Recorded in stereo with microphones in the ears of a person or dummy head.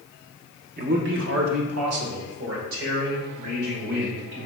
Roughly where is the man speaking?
Right.